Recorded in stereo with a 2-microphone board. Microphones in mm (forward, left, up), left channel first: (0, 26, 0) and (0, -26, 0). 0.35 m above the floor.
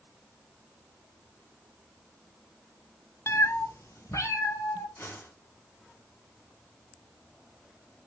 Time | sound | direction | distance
3.3 | a cat meowing | 55° left (ahead or behind) | 0.6 m
5.0 | a whoosh | 55° left (ahead or behind) | 3.5 m